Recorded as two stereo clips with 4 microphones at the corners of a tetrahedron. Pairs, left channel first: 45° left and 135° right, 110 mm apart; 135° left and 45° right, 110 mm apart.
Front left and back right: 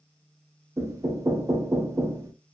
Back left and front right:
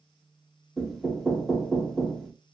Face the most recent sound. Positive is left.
turn(degrees=-140)